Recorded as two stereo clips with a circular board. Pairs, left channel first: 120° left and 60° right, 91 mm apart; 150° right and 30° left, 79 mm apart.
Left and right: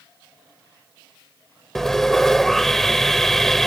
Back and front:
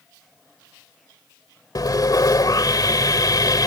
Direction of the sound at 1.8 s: 155° right.